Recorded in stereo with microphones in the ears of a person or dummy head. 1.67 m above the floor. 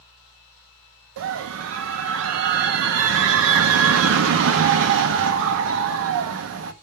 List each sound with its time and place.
1.2 s a scream: 70° right (ahead or behind), 0.7 m